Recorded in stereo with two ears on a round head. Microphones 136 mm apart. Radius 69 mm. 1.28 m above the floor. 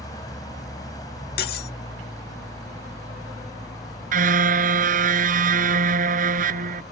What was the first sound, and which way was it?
An engine running, 25° left (ahead or behind).